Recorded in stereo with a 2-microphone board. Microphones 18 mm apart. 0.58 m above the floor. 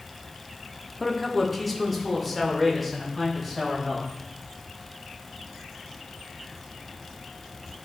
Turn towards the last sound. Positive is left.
turn(degrees=-5)  # may be behind; listen again after turning